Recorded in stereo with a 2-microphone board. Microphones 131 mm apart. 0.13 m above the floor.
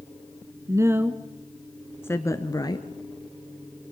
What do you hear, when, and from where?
0.7 s a woman speaking: 25° right (ahead or behind), 1.2 m; by 2.9 s 35° left (ahead or behind), 1.7 m